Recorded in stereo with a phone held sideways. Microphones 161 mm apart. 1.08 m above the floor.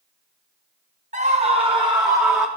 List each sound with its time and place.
1.1 s a scream: 50° right (ahead or behind), 1.0 m; by 2.5 s 15° right (ahead or behind), 1.3 m